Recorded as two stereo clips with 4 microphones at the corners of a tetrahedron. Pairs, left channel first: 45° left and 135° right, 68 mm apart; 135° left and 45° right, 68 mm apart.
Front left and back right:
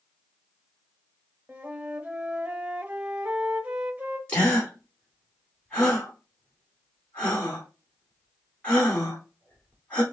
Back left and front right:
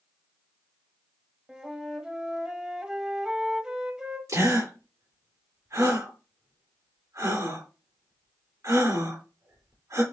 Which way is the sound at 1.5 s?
105° right.